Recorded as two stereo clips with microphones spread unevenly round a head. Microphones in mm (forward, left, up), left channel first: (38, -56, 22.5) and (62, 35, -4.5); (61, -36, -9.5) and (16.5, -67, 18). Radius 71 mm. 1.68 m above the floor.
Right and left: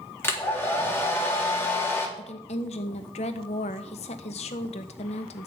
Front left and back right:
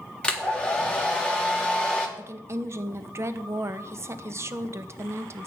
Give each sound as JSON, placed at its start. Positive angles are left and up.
{"t": 0.2, "sound": "a hair dryer", "azimuth_deg": -40, "distance_m": 3.5}
{"t": 2.2, "sound": "a woman speaking", "azimuth_deg": -115, "distance_m": 1.4}